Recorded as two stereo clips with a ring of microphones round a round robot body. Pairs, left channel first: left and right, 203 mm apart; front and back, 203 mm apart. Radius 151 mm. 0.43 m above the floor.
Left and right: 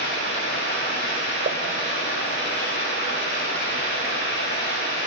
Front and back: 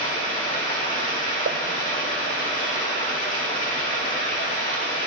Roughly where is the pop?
Behind right.